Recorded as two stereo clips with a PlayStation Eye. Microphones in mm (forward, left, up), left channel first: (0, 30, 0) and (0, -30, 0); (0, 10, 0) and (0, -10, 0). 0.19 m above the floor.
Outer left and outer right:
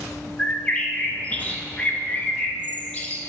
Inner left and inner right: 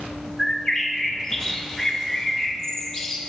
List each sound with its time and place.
0.4 s a bird: 20° left (ahead or behind), 1.0 m